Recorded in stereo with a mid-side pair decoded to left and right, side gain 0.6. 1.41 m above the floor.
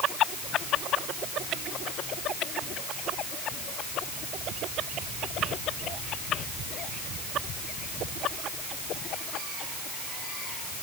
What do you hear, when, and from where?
Only background noise.